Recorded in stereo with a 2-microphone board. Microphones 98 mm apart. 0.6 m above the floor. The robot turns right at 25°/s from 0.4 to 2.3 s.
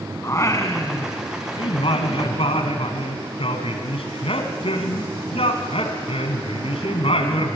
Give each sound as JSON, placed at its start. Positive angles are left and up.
{"t": 0.2, "sound": "singing", "azimuth_deg": 30, "distance_m": 2.0}